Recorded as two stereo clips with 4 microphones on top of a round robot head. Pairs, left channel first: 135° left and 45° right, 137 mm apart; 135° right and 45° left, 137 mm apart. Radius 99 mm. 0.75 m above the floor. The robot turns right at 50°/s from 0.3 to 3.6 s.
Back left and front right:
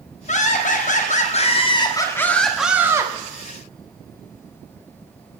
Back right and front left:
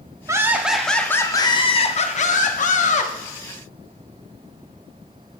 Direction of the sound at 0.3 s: 110° left.